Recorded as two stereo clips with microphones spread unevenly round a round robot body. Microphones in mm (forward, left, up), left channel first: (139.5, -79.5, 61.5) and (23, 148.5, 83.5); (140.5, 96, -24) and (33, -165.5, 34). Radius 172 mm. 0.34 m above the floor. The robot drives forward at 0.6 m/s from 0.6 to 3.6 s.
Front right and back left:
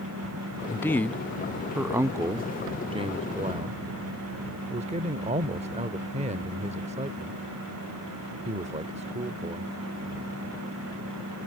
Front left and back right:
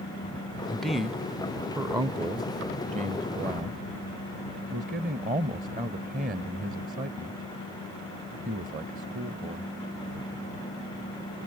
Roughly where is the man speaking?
Ahead.